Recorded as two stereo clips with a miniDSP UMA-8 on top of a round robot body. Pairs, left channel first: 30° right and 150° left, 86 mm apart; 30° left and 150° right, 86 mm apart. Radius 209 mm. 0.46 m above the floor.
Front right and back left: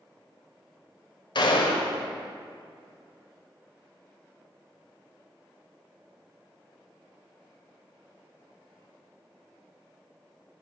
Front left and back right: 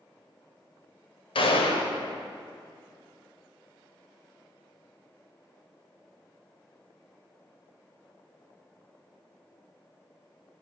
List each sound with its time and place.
1.4 s a gunshot: 10° left, 1.0 m